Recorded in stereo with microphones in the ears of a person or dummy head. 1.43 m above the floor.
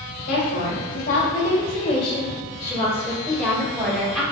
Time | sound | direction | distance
0.3 | a woman speaking | 70° left (ahead or behind) | 1.6 m